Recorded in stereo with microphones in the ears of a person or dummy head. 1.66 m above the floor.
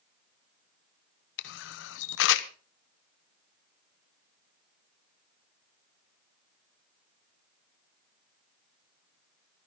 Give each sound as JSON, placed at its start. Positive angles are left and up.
{"t": 1.4, "sound": "a camera shutter", "side_deg": 70, "distance_m": 0.9}